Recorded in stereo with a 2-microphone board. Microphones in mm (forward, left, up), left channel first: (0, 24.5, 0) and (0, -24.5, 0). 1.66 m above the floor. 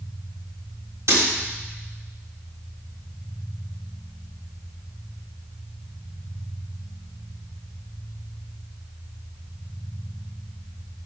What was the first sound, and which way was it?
Breaking glass, 75° right (ahead or behind).